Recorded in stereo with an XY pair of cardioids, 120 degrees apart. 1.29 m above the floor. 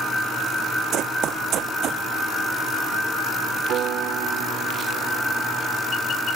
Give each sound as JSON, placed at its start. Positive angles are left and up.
{"t": 0.9, "sound": "running footsteps", "azimuth_deg": -70}
{"t": 3.7, "sound": "a piano", "azimuth_deg": -65}